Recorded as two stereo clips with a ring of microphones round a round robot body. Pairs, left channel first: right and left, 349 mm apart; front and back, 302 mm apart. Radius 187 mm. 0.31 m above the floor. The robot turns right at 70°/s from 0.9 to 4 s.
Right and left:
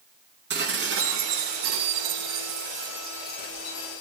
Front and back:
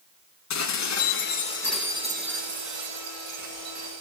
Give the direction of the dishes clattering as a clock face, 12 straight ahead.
11 o'clock.